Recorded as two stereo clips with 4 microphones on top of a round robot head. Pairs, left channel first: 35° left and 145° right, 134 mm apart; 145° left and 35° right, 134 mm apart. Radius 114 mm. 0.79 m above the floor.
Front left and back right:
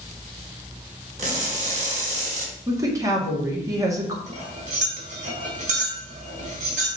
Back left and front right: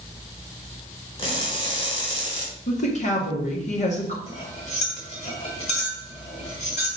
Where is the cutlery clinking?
175° right, 3 m.